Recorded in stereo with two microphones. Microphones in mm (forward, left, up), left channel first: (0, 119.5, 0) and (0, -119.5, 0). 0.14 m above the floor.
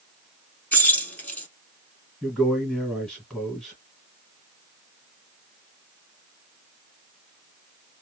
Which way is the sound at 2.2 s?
5° left (ahead or behind).